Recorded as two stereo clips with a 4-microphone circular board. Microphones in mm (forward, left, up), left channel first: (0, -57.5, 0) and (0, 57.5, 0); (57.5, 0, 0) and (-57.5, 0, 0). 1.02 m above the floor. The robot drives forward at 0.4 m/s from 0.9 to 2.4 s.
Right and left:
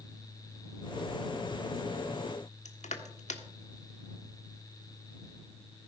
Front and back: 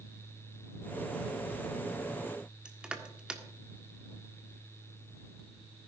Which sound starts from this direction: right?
Crushing, at 2.6 s.